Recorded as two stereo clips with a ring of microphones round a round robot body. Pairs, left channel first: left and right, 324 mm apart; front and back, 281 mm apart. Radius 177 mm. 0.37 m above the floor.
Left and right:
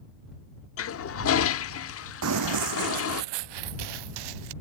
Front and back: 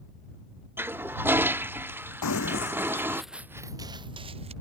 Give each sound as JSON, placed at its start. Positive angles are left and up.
{"t": 0.8, "sound": "a toilet flushing", "azimuth_deg": 100}
{"t": 2.2, "sound": "running footsteps", "azimuth_deg": -40}